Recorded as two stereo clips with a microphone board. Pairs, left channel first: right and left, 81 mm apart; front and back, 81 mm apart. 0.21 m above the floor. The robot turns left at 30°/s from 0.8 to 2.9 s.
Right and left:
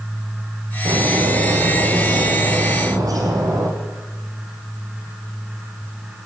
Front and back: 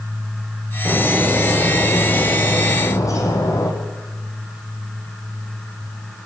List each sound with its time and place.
0.8 s a bird: 110° left, 6 m; by 3.7 s 50° left, 6 m